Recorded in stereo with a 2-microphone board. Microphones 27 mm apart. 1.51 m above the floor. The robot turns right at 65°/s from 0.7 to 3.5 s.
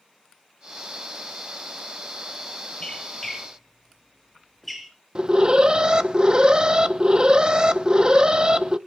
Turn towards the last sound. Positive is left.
turn(degrees=-30)  # may be behind; listen again after turning